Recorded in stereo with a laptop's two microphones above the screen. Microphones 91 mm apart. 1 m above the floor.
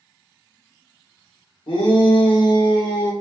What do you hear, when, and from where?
1.7 s a shout: 65° left (ahead or behind), 1.1 m; by 3.1 s 45° left (ahead or behind), 0.8 m